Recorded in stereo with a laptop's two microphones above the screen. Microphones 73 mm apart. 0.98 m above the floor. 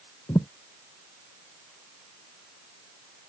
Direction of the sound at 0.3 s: 60° left (ahead or behind).